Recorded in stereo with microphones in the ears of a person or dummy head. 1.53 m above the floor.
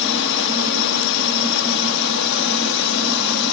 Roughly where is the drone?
Left.